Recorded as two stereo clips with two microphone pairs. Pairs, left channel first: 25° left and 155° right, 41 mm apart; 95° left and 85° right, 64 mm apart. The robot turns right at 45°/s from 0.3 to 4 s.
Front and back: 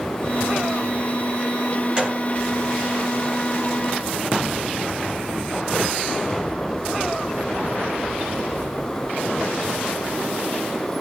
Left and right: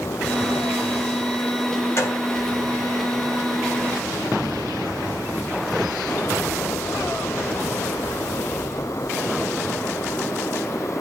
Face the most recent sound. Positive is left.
turn(degrees=-130)